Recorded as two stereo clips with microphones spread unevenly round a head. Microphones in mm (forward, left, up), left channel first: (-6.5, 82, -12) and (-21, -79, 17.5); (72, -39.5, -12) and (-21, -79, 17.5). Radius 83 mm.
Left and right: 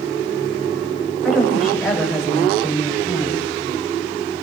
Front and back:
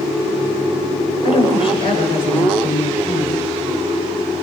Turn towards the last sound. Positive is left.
turn(degrees=-10)